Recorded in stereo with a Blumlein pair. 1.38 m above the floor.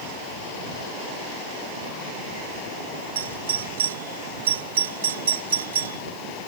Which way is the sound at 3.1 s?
65° right.